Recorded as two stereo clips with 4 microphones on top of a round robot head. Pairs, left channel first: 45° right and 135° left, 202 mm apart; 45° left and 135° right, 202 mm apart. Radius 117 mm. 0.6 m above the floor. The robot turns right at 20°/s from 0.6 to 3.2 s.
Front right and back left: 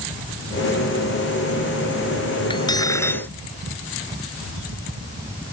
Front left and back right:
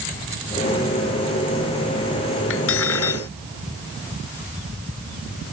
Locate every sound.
2.5 s cutlery clinking: 20° left; by 3.3 s 35° left